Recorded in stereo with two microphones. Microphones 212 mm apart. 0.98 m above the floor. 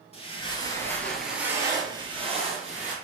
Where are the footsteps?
30° left (ahead or behind), 1.2 m; by 2.9 s 35° right (ahead or behind), 1.7 m.